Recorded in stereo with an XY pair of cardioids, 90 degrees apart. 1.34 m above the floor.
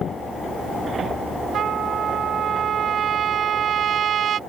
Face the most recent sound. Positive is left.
turn(degrees=-70)